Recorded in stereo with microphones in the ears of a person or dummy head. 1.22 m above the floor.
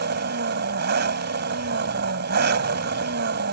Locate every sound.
0.0 s an engine running: 55° right (ahead or behind)